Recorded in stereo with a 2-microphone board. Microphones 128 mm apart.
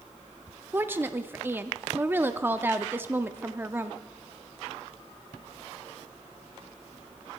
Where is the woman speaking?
15° right (ahead or behind), 0.6 m.